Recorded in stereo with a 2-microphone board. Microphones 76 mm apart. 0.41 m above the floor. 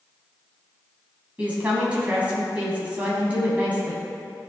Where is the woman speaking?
20° right (ahead or behind), 3 m.